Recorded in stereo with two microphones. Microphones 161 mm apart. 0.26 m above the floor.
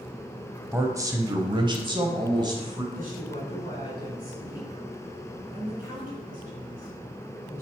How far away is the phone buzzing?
I don't hear a phone buzzing.